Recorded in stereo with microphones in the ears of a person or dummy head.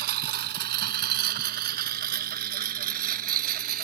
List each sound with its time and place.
0.0 s a lawn mower: 55° right (ahead or behind); by 3.9 s 45° right (ahead or behind)